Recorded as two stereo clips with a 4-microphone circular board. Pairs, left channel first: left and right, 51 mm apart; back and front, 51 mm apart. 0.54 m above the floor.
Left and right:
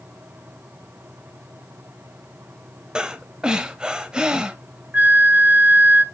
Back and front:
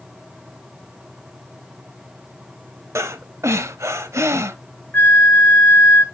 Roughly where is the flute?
Behind right.